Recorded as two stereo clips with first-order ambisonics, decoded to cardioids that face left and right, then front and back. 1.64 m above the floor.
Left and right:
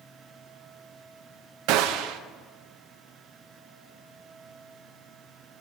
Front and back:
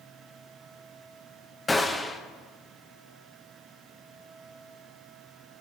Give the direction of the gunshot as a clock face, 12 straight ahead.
3 o'clock.